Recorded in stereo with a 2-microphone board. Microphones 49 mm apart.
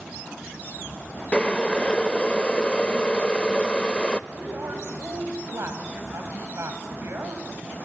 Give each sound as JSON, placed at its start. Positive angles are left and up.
{"t": 1.3, "sound": "boiling", "side_deg": 20, "distance_m": 0.6}
{"t": 4.3, "sound": "a woman speaking", "side_deg": -60, "distance_m": 3.5}